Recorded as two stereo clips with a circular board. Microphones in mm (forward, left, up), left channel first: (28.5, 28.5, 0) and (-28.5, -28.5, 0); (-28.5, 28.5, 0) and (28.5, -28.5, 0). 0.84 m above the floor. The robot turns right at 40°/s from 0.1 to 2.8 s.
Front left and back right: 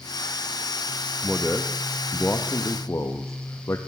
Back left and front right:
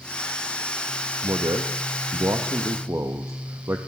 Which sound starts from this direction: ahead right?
A man speaking, at 1.2 s.